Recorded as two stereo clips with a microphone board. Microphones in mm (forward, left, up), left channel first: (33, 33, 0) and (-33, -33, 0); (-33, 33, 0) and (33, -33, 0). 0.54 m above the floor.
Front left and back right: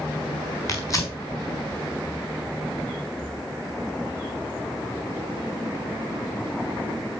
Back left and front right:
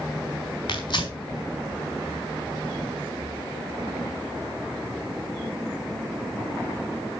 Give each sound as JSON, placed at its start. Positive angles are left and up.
{"t": 0.7, "sound": "tearing paper", "azimuth_deg": 100, "distance_m": 4.0}